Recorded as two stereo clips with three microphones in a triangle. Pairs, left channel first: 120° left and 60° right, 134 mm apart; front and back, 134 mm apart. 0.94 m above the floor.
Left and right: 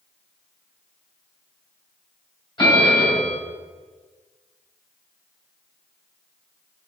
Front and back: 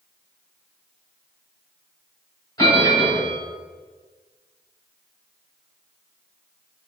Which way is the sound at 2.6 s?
65° left.